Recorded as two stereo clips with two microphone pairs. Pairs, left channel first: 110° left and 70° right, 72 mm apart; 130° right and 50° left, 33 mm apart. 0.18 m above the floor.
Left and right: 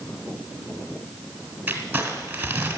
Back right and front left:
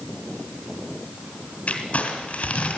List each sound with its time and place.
1.7 s crumpling: 130° right, 2 m